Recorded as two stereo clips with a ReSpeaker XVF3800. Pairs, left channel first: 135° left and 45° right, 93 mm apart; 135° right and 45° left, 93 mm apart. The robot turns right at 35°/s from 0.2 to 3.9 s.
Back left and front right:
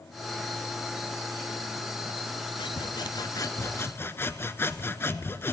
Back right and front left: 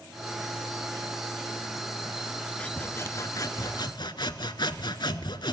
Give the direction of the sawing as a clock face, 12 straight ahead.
7 o'clock.